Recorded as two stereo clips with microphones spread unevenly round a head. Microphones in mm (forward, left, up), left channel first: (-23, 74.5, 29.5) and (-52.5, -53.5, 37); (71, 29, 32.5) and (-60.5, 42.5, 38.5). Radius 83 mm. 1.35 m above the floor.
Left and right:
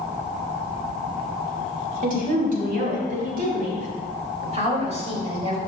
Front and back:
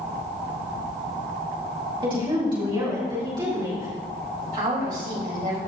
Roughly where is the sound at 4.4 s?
Behind right.